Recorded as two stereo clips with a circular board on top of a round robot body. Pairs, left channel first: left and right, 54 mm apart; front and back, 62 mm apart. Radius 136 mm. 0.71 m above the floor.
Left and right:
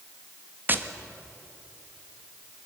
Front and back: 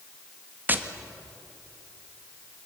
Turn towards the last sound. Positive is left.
turn(degrees=-130)